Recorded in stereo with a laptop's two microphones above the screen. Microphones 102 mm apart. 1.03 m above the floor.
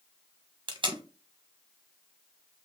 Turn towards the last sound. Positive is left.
turn(degrees=-50)  # may be behind; listen again after turning